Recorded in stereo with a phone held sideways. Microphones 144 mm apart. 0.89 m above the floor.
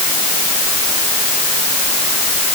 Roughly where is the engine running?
I don't hear an engine running.